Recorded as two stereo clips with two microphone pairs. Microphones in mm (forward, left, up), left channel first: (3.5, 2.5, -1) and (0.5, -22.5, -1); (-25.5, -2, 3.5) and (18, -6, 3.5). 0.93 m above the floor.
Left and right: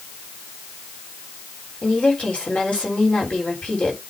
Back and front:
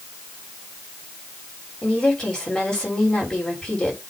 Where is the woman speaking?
105° left, 3 m.